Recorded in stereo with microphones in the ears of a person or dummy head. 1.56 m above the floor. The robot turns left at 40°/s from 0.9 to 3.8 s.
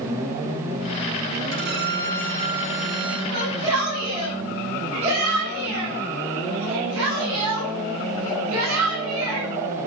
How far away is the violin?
About 4.5 m.